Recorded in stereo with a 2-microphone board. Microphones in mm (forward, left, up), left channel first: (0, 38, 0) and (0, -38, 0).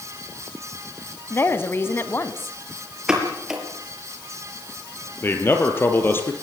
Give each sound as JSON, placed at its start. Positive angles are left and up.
{"t": 1.3, "sound": "a woman speaking", "side_deg": 30, "distance_m": 1.5}
{"t": 3.1, "sound": "a pop", "side_deg": -10, "distance_m": 5.5}
{"t": 5.2, "sound": "a man speaking", "side_deg": 30, "distance_m": 4.0}